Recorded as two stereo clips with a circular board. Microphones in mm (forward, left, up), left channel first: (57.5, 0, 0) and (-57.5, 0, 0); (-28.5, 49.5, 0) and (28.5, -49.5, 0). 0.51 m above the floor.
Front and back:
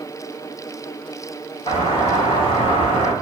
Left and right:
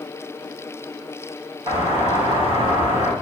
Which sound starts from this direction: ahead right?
A doorbell, at 1.7 s.